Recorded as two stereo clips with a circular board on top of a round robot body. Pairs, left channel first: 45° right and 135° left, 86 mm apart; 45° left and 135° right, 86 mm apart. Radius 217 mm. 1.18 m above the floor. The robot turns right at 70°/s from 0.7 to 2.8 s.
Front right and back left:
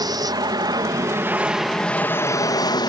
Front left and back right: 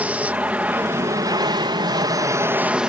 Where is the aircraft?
155° left; by 2.9 s 60° right.